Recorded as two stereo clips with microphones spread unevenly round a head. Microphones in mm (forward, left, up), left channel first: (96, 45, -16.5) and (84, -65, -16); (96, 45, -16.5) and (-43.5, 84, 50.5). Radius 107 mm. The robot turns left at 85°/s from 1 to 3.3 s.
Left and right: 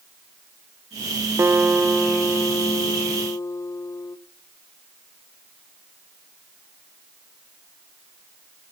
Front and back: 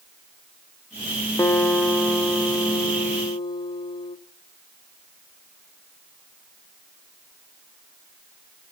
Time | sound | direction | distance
1.4 | a guitar | 130° right | 0.6 m